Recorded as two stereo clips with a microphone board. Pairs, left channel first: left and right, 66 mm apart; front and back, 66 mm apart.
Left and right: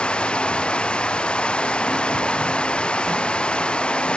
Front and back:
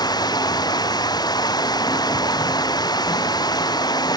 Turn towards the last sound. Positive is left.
turn(degrees=15)